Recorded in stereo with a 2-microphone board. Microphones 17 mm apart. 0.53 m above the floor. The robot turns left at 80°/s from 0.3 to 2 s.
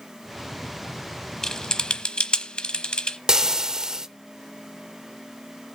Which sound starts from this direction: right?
Frying, at 3.3 s.